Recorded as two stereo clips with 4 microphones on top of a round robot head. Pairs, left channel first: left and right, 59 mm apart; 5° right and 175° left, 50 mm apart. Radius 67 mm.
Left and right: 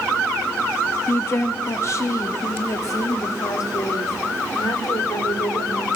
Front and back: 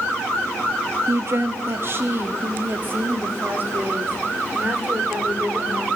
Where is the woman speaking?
140° left, 1.7 m; by 5.9 s 120° left, 4 m.